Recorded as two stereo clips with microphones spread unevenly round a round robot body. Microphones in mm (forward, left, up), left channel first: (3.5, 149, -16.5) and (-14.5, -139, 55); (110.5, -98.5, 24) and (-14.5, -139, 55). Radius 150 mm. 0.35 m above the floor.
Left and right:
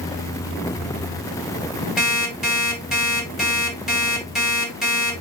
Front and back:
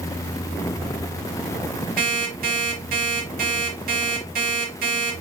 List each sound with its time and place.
2.0 s an alarm clock: 175° left, 2 m